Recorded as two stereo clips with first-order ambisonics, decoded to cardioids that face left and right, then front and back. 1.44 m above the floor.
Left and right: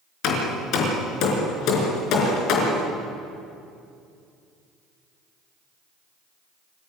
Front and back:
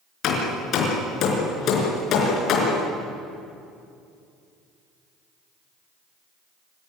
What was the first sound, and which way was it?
Hammering, 50° left.